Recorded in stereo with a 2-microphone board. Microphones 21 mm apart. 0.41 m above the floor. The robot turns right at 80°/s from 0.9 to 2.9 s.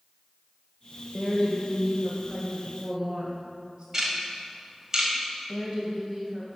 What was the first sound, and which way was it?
A woman speaking, 145° left.